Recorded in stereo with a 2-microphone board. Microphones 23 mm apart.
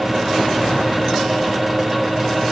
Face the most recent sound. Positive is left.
No sound to turn to.